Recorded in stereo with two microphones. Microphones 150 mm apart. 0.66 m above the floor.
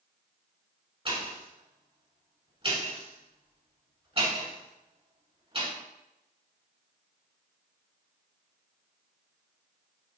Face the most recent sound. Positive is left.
turn(degrees=-40)  # may be behind; listen again after turning